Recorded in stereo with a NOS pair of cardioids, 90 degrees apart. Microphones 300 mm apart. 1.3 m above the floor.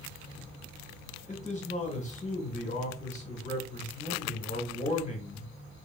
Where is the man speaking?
25° left, 2.5 m.